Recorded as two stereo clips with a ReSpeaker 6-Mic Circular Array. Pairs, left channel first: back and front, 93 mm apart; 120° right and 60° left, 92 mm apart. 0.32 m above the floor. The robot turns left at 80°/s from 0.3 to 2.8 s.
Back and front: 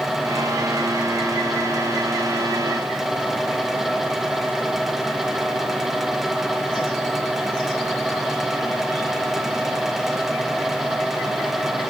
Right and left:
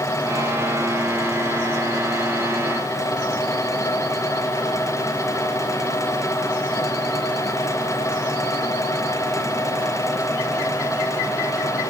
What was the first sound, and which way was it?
Only background noise.